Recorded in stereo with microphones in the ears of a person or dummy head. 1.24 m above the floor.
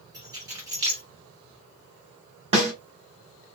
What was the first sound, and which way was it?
Keys jangling, 25° right (ahead or behind).